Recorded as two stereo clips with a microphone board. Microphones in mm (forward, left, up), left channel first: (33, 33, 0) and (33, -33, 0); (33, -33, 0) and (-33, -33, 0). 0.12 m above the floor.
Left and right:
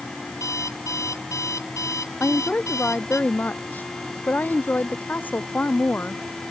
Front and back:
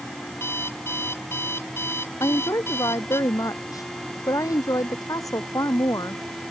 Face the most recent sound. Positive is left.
turn(degrees=25)